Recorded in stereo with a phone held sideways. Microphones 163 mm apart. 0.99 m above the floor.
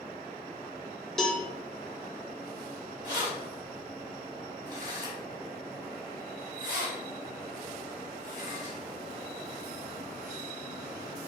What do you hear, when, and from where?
1.2 s a cowbell: centre (ahead or behind), 0.8 m
3.0 s keys jangling: 50° right (ahead or behind), 1.6 m